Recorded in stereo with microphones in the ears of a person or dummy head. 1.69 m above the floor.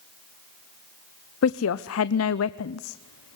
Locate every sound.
1.4 s a woman speaking: 80° left, 0.8 m